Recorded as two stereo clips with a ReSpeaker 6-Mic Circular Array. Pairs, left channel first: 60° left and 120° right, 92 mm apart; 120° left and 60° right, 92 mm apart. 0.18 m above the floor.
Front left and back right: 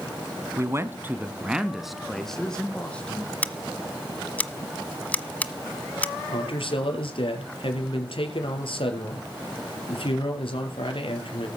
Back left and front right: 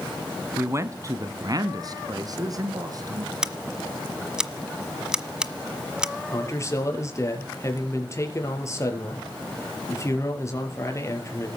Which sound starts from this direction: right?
A man speaking, at 0.6 s.